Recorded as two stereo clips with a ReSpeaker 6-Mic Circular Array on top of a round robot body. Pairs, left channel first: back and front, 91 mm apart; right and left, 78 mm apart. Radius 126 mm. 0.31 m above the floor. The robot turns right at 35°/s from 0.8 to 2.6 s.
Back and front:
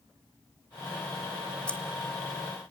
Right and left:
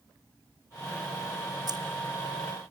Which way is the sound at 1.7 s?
105° left.